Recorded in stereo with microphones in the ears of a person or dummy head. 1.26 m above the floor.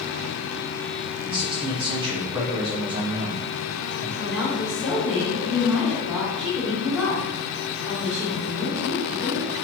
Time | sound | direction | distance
1.2 | a man speaking | 20° right (ahead or behind) | 0.8 m
4.2 | a woman speaking | 5° left (ahead or behind) | 1.6 m